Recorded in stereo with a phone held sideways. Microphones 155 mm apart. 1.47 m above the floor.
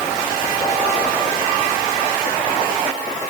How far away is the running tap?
I don't hear a running tap.